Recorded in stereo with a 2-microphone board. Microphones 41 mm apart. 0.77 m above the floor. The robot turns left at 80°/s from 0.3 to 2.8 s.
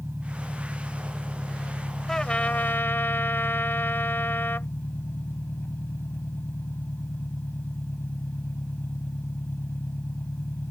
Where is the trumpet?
165° left; by 4.7 s 105° left.